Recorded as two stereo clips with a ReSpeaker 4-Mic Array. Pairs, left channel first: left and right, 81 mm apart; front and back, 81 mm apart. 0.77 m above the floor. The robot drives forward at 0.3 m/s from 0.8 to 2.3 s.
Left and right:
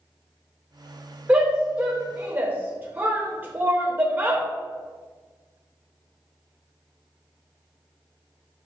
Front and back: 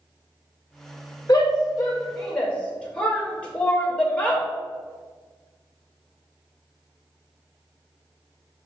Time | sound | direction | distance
1.3 | a shout | 25° right | 0.6 m